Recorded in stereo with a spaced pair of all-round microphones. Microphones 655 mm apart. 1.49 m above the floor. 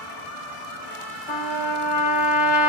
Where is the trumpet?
50° left (ahead or behind), 1.0 m.